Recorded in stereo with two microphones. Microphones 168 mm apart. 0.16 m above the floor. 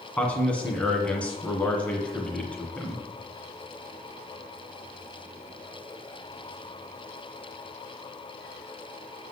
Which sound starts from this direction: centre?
A man speaking, at 0.2 s.